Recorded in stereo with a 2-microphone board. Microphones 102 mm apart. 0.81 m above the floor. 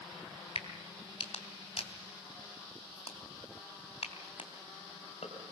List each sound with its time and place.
0.6 s a crack: 90° left, 3 m